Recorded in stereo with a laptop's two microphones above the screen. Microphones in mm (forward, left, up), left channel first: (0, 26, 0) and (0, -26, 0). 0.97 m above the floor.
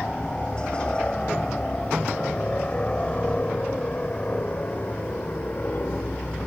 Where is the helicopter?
20° left (ahead or behind); by 6.5 s 40° left (ahead or behind).